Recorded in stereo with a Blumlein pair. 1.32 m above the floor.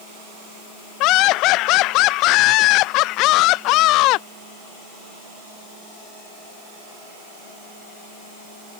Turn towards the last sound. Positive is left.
turn(degrees=40)